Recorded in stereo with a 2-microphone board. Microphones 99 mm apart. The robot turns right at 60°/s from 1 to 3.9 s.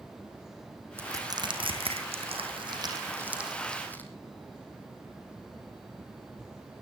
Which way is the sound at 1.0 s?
25° right (ahead or behind).